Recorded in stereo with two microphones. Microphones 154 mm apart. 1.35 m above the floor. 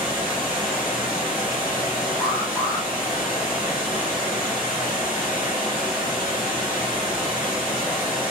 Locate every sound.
0.0 s running water: 10° right (ahead or behind), 1.3 m
2.2 s an alarm: 20° left (ahead or behind), 0.7 m